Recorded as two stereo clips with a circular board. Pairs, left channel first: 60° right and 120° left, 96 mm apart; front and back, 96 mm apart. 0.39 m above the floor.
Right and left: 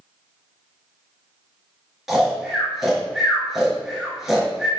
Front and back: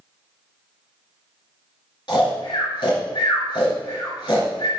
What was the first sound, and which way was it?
Snoring, 35° left.